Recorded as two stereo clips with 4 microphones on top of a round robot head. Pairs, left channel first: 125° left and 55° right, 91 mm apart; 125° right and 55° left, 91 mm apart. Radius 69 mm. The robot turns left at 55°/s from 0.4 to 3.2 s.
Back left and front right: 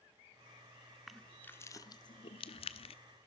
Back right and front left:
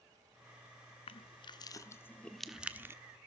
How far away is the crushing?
About 1.2 m.